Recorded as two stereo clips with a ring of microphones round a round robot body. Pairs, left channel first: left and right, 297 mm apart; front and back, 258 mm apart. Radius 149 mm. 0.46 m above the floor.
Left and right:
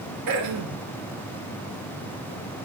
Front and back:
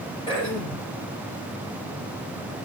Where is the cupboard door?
No cupboard door in this recording.